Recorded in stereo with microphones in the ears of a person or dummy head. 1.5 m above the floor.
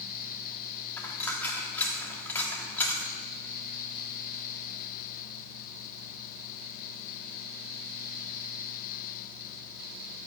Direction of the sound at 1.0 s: 10° left (ahead or behind).